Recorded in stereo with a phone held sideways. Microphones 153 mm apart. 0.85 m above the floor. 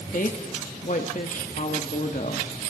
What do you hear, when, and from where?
0.1 s a woman speaking: 60° left (ahead or behind), 1.6 m